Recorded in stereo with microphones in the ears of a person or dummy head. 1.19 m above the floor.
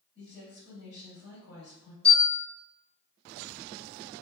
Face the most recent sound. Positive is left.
turn(degrees=30)  # may be behind; listen again after turning